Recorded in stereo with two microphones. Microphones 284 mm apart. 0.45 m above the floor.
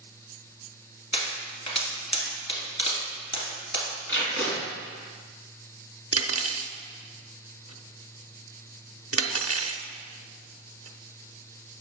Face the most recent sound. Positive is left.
turn(degrees=-55)  # may be behind; listen again after turning